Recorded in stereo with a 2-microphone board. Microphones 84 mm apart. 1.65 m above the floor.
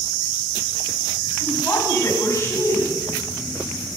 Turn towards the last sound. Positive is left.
turn(degrees=40)  # may be behind; listen again after turning